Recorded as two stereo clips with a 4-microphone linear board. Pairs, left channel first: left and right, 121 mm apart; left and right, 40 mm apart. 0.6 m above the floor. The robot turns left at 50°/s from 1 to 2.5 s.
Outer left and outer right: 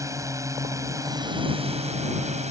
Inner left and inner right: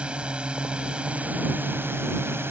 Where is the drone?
30° right; by 2.5 s 105° right.